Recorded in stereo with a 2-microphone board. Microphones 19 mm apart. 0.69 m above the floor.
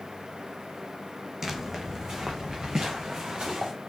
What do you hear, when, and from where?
1.4 s footsteps: 25° right (ahead or behind), 1.4 m; by 3.7 s 50° right (ahead or behind), 3.5 m